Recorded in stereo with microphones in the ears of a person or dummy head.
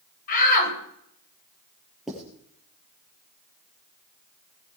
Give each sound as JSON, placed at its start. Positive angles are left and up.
{"t": 0.3, "sound": "a shout", "side_deg": 50, "distance_m": 9.0}
{"t": 2.1, "sound": "writing", "side_deg": 0, "distance_m": 6.5}